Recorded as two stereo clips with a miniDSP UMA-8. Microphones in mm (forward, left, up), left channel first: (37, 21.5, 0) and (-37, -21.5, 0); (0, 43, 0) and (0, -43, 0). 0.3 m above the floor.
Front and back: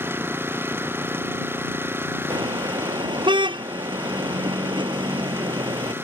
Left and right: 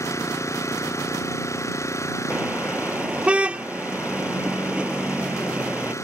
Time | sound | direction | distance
0.0 | an engine running | 145° left | ?
2.3 | a car horn | 165° right | ?